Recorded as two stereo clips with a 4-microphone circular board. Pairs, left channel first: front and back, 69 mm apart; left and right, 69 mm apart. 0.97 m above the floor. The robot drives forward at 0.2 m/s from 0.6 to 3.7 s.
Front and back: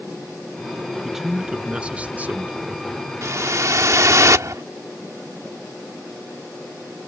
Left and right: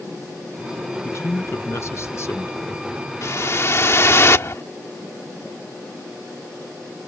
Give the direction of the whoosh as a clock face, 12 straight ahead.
7 o'clock.